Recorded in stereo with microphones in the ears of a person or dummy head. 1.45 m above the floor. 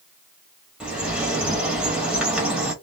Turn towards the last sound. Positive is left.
turn(degrees=-5)  # may be behind; listen again after turning